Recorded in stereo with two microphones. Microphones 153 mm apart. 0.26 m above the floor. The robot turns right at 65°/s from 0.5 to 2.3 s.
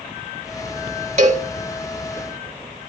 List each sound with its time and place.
1.2 s a cowbell: 50° right (ahead or behind), 1.4 m